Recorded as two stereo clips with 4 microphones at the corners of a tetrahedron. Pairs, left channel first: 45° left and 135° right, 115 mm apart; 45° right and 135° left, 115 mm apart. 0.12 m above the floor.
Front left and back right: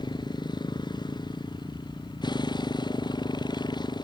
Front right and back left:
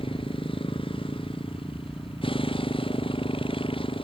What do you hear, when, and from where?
0.0 s a motorcycle: 5° right